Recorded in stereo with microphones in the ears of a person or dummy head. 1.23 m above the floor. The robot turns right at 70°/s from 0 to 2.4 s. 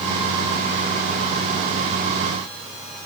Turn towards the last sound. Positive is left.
No sound to turn to.